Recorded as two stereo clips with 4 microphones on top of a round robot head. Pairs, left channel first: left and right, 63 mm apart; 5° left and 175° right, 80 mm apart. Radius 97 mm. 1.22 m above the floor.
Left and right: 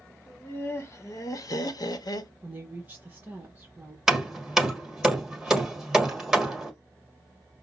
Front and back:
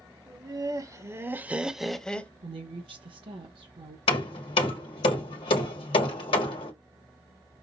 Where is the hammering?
5° right, 1.2 m.